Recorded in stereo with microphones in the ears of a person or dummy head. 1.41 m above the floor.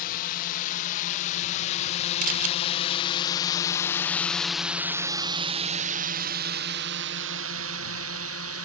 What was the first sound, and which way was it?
A drone, 50° left (ahead or behind).